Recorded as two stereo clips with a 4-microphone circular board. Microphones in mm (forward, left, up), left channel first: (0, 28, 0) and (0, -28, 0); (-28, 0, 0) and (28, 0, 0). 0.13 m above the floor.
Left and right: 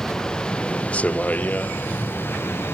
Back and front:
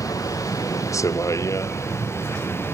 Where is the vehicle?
170° left; by 2.8 s 135° left.